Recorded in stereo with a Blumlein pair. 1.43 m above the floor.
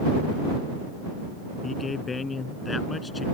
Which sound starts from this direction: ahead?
A man speaking, at 1.6 s.